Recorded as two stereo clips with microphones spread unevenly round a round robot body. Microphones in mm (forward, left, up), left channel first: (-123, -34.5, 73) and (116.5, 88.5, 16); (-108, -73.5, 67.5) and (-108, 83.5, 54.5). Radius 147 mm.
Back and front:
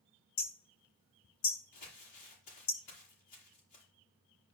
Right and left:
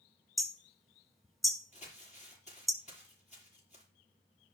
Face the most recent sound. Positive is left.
turn(degrees=-135)